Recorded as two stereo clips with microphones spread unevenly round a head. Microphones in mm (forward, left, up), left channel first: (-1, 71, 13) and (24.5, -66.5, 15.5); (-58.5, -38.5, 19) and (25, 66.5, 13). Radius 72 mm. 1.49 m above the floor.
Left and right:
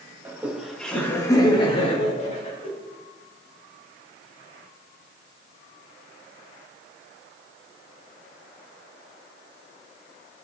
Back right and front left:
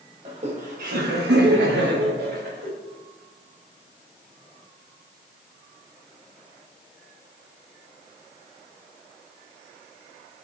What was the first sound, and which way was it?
Laughter, 5° right.